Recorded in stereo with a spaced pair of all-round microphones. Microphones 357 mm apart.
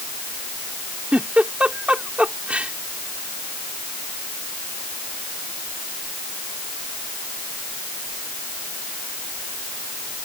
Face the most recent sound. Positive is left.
turn(degrees=-5)  # may be behind; listen again after turning